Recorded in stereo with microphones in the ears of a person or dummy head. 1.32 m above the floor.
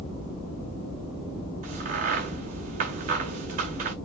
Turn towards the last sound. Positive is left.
turn(degrees=-40)  # may be behind; listen again after turning